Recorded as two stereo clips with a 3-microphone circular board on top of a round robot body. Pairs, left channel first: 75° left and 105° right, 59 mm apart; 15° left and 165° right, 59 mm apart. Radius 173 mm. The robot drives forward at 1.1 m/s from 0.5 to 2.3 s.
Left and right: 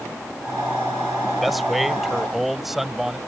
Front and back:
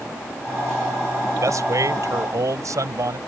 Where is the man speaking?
165° left; by 3.2 s 170° left.